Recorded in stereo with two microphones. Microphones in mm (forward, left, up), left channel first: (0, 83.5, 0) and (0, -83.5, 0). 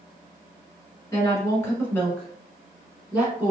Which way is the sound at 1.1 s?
20° left (ahead or behind).